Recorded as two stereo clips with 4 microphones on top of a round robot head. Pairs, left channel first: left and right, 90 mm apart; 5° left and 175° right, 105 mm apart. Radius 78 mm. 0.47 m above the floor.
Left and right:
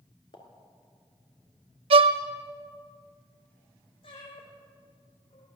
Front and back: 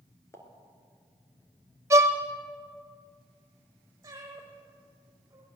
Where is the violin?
110° right, 0.7 m.